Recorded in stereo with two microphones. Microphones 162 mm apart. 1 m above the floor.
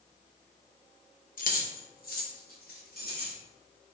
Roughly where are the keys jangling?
Left.